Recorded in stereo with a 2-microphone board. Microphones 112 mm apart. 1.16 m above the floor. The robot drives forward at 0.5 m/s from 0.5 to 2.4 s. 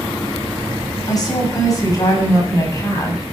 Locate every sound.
1.1 s a woman speaking: 35° left (ahead or behind), 6.5 m; by 3.2 s 30° left (ahead or behind), 7 m